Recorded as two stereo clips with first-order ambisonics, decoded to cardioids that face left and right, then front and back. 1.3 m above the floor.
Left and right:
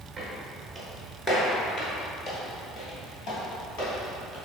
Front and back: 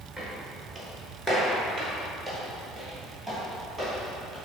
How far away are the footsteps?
About 1.3 m.